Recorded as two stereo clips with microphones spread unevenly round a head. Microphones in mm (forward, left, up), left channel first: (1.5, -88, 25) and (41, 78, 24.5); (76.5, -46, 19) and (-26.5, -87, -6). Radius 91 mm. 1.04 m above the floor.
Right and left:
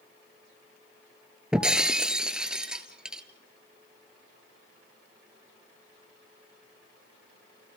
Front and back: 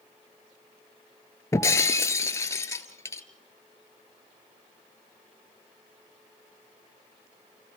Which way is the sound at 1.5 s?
5° right.